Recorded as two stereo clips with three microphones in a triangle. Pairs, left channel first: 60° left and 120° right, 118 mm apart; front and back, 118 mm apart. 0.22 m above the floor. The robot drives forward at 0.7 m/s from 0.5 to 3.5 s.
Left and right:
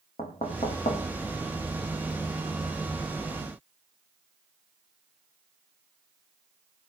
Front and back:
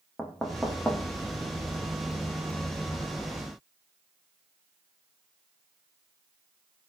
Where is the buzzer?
No buzzer in this recording.